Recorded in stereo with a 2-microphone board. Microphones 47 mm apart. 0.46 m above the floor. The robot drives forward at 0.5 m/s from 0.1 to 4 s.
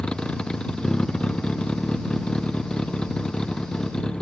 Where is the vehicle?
15° left (ahead or behind).